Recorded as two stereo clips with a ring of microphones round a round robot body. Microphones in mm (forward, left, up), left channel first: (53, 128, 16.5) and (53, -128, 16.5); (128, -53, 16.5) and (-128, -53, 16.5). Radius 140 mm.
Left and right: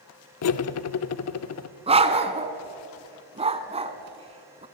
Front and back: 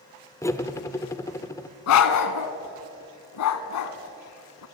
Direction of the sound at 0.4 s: 80° left.